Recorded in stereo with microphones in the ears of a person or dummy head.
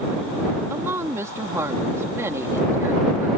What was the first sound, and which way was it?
A woman speaking, 10° right (ahead or behind).